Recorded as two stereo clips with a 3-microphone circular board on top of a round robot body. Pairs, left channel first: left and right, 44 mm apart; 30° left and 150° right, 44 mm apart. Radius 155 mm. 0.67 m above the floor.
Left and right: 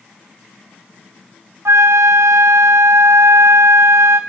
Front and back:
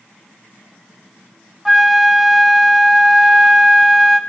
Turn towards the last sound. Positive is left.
turn(degrees=-65)